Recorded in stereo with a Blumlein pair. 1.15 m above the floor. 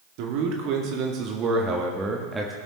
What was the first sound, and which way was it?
A man speaking, 45° right.